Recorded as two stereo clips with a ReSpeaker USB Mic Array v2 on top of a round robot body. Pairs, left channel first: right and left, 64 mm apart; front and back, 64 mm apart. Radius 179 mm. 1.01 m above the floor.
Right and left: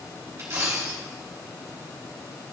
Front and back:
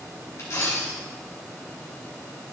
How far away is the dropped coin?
About 2.5 m.